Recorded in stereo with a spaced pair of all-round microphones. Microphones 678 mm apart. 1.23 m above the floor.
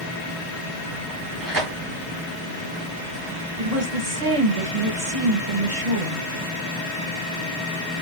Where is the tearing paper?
30° right (ahead or behind), 1.1 m.